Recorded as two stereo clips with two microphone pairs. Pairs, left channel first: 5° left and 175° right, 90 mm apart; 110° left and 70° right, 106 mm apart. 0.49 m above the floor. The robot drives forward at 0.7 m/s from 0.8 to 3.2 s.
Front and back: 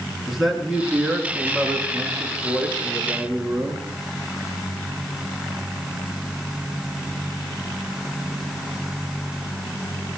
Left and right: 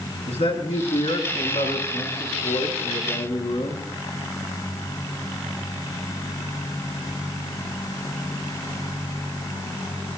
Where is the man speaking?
95° left, 6.5 m; by 3.9 s 110° left, 7 m.